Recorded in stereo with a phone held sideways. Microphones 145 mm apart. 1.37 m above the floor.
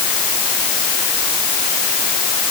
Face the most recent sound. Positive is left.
No sound to turn to.